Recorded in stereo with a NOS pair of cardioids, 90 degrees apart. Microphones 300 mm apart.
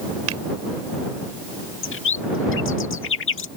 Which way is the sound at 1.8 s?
45° left.